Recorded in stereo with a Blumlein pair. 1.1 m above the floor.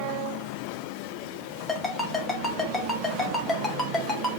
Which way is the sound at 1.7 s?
10° left.